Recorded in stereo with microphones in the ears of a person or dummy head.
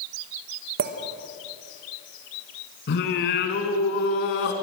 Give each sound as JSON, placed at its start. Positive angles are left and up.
{"t": 0.8, "sound": "a clink", "side_deg": -60, "distance_m": 1.3}
{"t": 2.9, "sound": "singing", "side_deg": 60, "distance_m": 2.5}